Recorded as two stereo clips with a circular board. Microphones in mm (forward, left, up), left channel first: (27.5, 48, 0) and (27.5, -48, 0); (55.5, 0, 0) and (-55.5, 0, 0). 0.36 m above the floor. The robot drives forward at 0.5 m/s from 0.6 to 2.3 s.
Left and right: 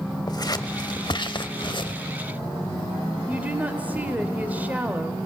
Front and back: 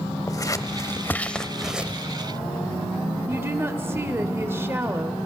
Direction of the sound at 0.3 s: 55° left.